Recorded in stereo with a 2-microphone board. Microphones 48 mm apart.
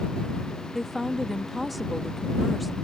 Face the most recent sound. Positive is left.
turn(degrees=0)  # may be behind; listen again after turning